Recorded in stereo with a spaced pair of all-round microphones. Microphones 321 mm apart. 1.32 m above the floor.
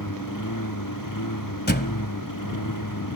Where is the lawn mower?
80° left; by 3.2 s 85° left.